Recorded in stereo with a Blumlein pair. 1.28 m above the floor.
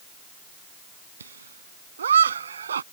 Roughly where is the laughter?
Right.